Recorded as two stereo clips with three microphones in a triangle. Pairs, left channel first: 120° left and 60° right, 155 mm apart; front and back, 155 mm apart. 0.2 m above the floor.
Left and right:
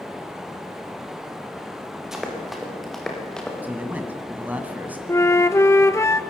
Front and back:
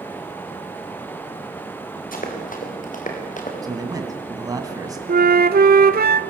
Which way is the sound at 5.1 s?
170° right.